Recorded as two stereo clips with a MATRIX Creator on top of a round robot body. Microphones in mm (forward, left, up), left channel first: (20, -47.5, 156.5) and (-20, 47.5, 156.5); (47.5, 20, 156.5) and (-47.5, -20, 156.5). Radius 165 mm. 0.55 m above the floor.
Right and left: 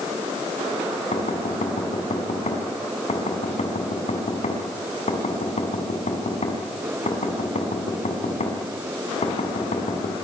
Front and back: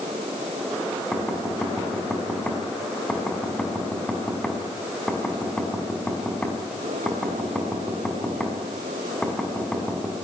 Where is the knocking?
60° right, 5.5 m.